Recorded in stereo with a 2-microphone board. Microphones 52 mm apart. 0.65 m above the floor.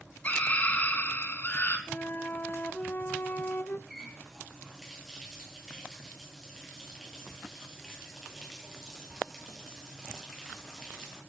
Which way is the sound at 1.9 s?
40° left (ahead or behind).